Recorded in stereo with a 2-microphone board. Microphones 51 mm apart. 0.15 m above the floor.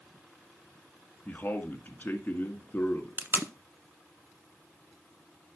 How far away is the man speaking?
About 1.5 m.